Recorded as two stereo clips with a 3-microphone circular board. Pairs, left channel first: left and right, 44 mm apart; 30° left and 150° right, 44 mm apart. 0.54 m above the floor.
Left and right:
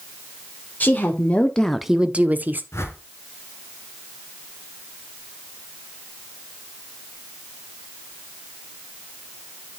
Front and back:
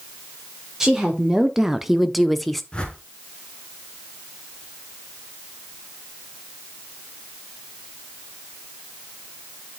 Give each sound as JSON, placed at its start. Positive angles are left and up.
{"t": 0.8, "sound": "a woman speaking", "azimuth_deg": 130, "distance_m": 1.5}
{"t": 2.7, "sound": "a whoosh", "azimuth_deg": 100, "distance_m": 1.6}